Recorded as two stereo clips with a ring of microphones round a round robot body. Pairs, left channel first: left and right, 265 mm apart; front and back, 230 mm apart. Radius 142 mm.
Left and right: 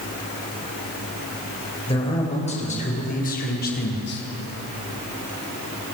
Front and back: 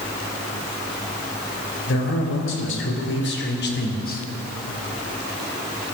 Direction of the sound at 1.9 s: 20° left.